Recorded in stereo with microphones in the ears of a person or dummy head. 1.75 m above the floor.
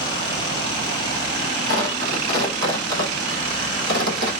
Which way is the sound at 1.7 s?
70° right (ahead or behind).